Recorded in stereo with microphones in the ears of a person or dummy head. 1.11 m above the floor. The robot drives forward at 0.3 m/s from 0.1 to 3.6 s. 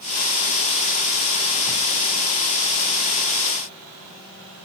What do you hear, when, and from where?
Only background noise.